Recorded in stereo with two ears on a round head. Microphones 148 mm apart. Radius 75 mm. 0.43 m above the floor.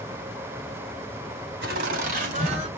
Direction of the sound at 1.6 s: 60° right (ahead or behind).